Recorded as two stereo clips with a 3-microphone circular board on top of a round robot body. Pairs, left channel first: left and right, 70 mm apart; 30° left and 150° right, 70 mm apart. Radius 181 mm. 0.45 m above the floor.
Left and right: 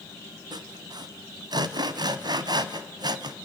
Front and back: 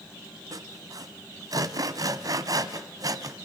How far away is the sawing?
About 1.1 m.